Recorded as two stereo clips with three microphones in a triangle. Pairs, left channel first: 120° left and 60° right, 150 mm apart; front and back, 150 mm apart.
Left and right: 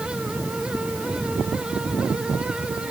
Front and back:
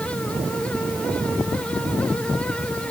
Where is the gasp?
No gasp in this recording.